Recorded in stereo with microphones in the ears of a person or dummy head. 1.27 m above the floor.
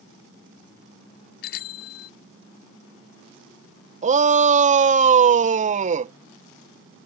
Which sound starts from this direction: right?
A shout, at 4.0 s.